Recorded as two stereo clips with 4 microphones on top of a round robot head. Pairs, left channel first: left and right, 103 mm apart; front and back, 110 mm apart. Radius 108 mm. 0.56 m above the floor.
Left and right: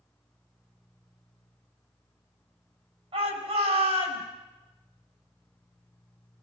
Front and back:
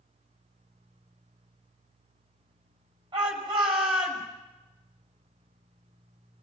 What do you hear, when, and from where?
3.1 s a shout: 125° right, 6 m